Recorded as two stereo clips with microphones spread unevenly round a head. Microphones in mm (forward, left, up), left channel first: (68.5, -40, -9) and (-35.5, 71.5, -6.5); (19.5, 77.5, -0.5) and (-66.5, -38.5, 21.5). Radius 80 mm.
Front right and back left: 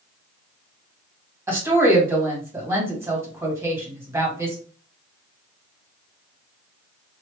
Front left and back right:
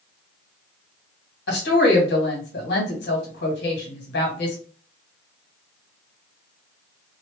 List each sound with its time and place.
1.5 s a woman speaking: 60° left, 1.8 m